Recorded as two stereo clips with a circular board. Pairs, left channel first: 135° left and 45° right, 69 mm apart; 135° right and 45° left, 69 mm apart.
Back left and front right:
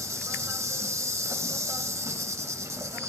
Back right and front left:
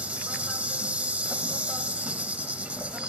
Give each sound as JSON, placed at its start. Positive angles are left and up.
{"t": 0.0, "sound": "an insect", "azimuth_deg": -20, "distance_m": 0.8}